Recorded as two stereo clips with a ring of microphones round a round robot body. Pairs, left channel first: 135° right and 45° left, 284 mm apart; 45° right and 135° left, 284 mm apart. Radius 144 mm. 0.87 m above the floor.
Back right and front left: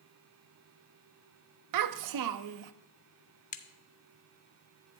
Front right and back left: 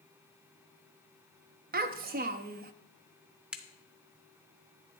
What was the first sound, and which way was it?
A child speaking, 75° left.